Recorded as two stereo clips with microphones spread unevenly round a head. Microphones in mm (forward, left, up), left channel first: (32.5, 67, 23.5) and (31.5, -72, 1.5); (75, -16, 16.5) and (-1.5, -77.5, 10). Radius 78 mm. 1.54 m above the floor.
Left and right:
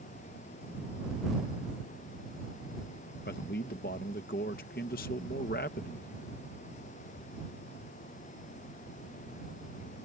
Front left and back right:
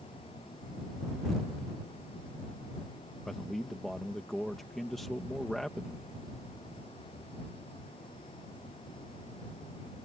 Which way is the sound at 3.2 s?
125° left.